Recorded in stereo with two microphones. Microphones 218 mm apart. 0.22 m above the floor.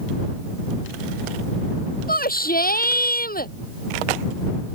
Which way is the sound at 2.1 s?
40° left (ahead or behind).